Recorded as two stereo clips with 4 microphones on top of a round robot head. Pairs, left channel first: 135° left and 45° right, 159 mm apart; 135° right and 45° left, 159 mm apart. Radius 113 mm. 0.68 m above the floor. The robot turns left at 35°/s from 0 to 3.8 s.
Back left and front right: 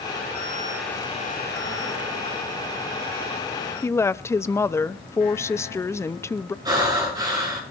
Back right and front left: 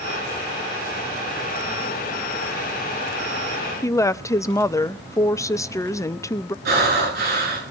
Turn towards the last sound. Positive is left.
turn(degrees=20)